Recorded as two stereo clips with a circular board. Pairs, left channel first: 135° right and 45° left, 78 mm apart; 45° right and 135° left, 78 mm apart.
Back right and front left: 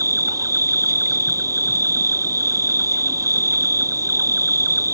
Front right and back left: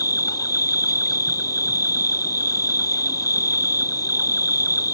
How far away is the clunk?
I don't hear a clunk.